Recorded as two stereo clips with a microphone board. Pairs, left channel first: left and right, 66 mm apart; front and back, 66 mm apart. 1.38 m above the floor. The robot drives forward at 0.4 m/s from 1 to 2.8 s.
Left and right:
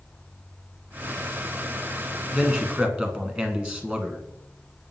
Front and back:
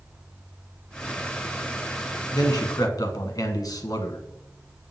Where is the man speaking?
20° right, 1.5 m.